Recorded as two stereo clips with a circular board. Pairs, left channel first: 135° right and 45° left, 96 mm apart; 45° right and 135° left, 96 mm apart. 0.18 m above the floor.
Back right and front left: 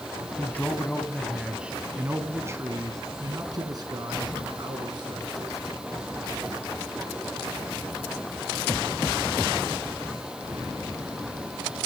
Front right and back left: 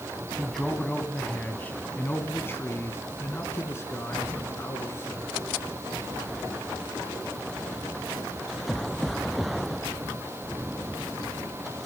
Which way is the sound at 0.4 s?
125° right.